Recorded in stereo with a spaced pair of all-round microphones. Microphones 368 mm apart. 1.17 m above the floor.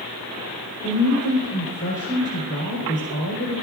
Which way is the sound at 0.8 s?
55° left (ahead or behind).